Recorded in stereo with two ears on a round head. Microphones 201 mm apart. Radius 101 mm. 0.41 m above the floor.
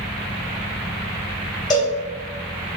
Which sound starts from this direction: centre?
A cowbell, at 1.7 s.